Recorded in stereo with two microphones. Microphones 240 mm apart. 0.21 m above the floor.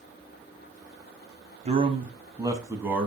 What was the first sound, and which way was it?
A man speaking, 25° right (ahead or behind).